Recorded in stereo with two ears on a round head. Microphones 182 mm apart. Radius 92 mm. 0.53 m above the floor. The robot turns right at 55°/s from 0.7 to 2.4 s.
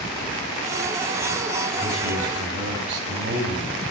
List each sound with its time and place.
1.8 s a man speaking: 135° right, 2.5 m; by 3.7 s 100° right, 2.5 m